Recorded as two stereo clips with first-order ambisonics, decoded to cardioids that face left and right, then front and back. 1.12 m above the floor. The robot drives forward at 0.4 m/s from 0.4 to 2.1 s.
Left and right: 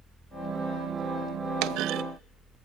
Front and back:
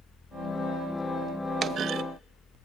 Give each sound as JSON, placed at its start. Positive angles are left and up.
{"t": 1.6, "sound": "a clunk", "azimuth_deg": -115, "distance_m": 0.5}